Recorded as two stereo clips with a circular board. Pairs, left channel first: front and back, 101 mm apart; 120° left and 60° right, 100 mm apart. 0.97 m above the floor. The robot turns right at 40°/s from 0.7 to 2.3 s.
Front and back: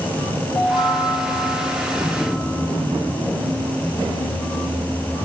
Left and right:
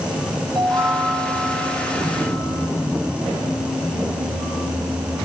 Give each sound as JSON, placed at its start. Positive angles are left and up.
{"t": 0.6, "sound": "a chime", "azimuth_deg": -25, "distance_m": 6.0}